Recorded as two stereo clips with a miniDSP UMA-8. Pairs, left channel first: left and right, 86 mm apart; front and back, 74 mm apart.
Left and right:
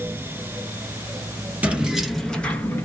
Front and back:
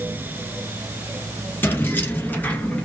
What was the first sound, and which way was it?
Keys jangling, 35° right.